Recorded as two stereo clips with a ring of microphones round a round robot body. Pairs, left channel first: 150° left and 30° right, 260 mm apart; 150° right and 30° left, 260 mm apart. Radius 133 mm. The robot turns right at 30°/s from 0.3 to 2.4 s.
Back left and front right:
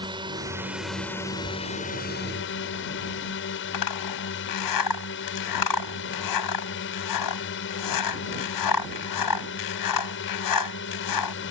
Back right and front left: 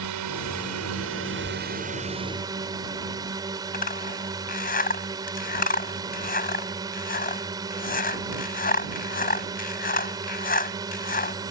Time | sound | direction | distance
0.0 | a drone | 45° left | ?
3.7 | a zipper | 150° left | ?